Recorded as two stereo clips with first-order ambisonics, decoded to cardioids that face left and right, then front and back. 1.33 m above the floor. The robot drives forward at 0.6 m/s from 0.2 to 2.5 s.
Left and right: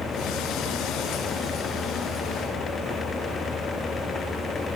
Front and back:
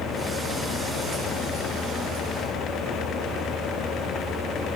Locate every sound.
Only background noise.